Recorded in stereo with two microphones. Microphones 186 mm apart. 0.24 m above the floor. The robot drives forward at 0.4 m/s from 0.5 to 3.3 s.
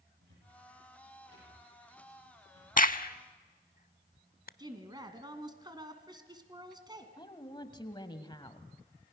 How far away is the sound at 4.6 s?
About 2.0 m.